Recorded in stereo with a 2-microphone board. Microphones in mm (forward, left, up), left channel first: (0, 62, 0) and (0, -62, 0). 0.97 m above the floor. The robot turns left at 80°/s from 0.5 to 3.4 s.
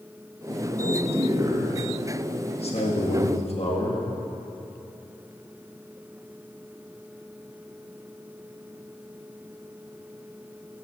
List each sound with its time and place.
0.8 s a man speaking: 90° right, 1.9 m; by 4.0 s 60° left, 1.9 m